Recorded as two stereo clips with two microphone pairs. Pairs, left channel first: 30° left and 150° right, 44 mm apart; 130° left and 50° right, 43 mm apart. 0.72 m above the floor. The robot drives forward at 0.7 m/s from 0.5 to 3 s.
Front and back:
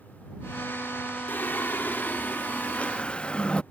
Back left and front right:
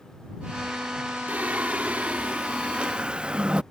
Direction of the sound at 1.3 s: Straight ahead.